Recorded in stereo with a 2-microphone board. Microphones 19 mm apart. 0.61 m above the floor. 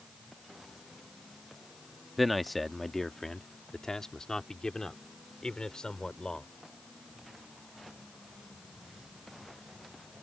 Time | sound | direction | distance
2.2 | a man speaking | centre (ahead or behind) | ?